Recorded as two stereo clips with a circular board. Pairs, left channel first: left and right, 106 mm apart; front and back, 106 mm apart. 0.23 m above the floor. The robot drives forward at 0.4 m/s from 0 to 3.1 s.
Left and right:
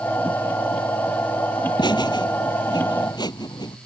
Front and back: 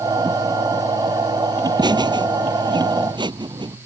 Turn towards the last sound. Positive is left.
turn(degrees=140)